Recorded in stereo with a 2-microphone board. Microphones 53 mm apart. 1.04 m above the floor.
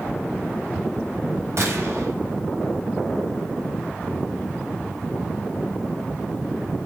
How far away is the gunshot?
About 5.5 m.